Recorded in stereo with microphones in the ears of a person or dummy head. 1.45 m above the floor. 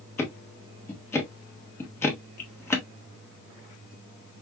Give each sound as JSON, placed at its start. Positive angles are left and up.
{"t": 0.2, "sound": "ticking", "side_deg": 15, "distance_m": 1.4}